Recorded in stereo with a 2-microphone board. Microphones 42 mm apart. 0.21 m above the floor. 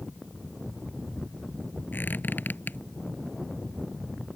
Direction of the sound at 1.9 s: 50° left (ahead or behind).